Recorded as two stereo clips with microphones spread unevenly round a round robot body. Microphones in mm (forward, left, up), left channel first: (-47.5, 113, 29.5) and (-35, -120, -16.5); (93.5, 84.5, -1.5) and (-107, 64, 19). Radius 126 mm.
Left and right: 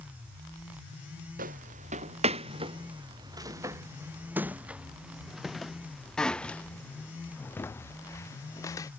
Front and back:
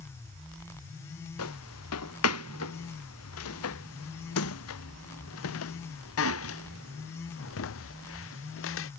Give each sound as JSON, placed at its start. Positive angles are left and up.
{"t": 1.4, "sound": "footsteps", "azimuth_deg": -25}